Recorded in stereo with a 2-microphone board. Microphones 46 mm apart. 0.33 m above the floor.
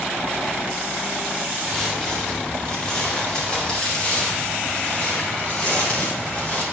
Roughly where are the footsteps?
Centre.